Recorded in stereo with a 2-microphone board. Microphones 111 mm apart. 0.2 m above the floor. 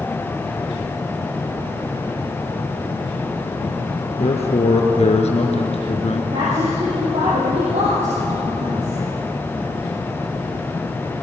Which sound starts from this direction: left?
A man speaking, at 4.2 s.